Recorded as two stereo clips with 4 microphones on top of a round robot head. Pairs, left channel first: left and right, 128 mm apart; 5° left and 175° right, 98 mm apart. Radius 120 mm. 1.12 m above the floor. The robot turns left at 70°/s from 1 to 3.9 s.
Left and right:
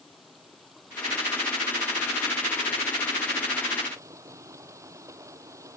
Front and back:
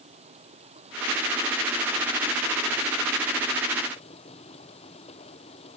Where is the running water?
Straight behind; by 5.8 s 25° right.